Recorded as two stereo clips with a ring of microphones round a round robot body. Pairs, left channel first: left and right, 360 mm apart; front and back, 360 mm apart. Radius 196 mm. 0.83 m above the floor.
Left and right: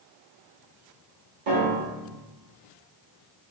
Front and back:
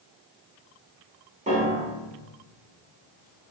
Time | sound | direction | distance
1.5 | a piano | 110° right | 1.9 m